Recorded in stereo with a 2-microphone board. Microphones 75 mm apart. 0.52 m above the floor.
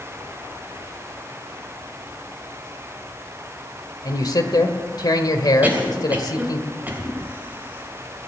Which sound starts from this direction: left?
A man speaking, at 4.0 s.